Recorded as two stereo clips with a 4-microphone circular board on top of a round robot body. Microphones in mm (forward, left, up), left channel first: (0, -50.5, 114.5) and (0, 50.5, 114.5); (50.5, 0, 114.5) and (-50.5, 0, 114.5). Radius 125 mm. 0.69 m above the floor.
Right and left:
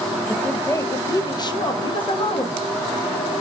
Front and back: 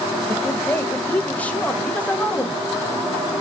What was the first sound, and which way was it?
A woman speaking, 40° right.